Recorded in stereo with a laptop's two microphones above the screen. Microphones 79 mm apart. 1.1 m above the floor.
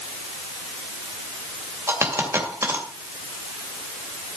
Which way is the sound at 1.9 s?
35° right (ahead or behind).